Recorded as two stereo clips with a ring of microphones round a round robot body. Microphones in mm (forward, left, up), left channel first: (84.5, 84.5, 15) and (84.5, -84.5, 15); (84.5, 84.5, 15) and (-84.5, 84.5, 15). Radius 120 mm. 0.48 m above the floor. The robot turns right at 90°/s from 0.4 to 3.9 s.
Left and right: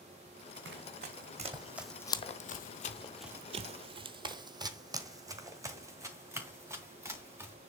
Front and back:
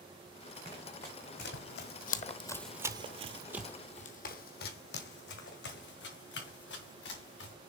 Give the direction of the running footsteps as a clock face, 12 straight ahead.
4 o'clock.